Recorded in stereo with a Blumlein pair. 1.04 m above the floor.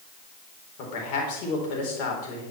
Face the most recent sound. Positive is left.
turn(degrees=45)